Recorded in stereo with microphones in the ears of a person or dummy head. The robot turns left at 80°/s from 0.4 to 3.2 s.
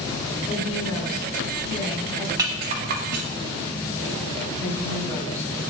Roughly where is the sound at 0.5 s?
Behind.